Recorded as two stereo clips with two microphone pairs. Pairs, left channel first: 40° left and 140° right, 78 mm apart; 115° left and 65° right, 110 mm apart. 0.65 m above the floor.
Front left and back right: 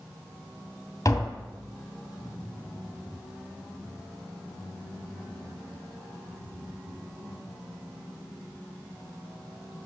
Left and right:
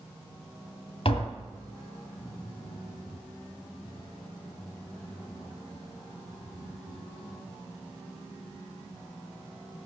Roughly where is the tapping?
Left.